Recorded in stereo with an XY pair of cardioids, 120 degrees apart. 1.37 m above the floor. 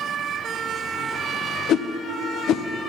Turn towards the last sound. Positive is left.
turn(degrees=65)